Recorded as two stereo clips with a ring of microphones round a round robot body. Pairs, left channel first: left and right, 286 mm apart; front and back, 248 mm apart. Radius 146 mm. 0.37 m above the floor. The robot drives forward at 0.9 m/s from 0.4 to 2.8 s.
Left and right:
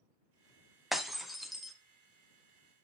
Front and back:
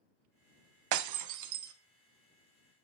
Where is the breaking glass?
Straight behind, 0.7 m.